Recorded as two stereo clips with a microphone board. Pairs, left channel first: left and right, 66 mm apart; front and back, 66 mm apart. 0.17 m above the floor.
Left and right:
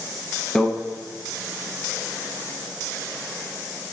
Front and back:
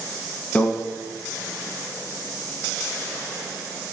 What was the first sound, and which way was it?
A microwave, 30° left.